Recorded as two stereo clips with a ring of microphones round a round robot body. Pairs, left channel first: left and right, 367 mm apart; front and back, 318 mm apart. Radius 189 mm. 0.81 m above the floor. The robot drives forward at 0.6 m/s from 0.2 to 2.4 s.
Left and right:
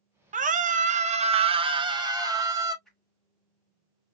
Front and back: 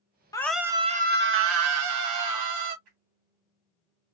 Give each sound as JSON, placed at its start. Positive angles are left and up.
{"t": 0.3, "sound": "a scream", "azimuth_deg": -60, "distance_m": 0.7}
{"t": 2.9, "sound": "a whoosh", "azimuth_deg": 180, "distance_m": 1.9}